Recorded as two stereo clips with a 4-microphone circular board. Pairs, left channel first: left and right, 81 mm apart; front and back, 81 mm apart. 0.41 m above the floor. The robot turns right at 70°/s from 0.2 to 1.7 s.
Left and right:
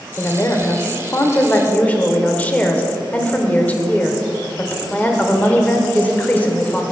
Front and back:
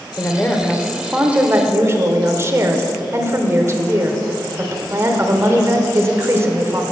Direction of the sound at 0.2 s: 45° left.